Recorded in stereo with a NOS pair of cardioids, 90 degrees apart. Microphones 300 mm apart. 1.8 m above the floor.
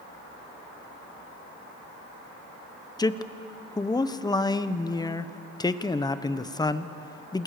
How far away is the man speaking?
About 1.2 m.